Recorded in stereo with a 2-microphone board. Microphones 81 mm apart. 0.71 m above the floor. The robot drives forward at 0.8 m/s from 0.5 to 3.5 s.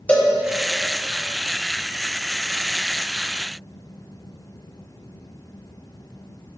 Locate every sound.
0.1 s a cowbell: 20° left (ahead or behind), 1.4 m